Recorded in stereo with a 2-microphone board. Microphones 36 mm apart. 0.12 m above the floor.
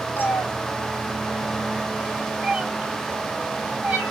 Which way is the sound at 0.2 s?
80° left.